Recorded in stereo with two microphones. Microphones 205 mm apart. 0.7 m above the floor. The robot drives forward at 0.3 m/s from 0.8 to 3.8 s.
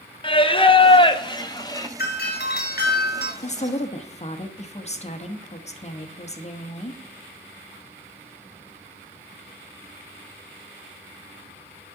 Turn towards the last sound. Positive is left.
turn(degrees=35)  # may be behind; listen again after turning